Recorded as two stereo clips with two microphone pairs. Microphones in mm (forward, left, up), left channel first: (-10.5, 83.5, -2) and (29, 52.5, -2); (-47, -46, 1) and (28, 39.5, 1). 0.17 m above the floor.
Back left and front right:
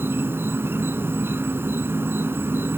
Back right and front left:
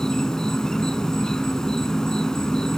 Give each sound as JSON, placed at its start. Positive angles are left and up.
{"t": 0.0, "sound": "an insect", "azimuth_deg": -50, "distance_m": 1.0}